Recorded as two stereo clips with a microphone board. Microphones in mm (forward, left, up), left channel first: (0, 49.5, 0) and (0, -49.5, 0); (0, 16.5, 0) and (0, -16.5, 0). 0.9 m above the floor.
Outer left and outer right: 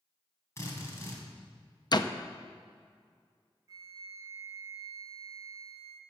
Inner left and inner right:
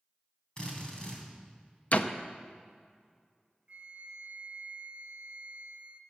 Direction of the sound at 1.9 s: 45° left (ahead or behind).